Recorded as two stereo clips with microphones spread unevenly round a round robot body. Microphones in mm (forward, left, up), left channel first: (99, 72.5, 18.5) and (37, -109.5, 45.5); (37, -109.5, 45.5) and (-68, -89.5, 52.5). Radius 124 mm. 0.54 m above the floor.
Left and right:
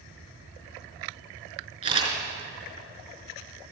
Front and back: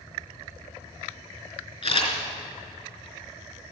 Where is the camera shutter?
45° right, 4 m.